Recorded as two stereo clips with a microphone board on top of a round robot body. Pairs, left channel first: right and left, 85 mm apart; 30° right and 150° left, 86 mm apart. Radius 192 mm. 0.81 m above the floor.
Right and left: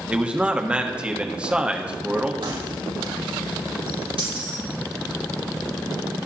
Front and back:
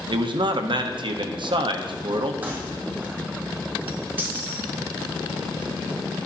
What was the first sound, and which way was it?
A man speaking, 165° left.